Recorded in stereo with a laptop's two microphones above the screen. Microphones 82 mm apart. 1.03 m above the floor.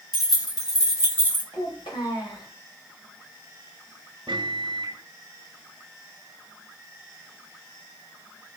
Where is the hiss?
No hiss in this recording.